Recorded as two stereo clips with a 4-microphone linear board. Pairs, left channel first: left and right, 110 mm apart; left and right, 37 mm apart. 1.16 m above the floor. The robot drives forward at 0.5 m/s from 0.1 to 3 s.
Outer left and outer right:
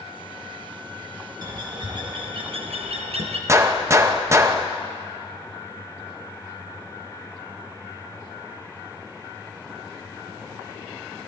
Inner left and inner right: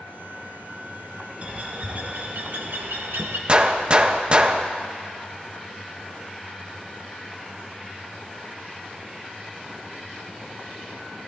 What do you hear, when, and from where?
1.4 s a bird: 40° right (ahead or behind), 1.1 m; by 3.4 s 75° right (ahead or behind), 0.7 m
3.5 s a gunshot: 25° right (ahead or behind), 0.5 m